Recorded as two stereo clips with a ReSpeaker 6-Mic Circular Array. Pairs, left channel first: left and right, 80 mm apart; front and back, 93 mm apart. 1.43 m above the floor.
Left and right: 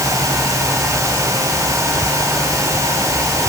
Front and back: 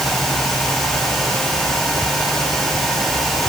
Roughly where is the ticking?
No ticking in this recording.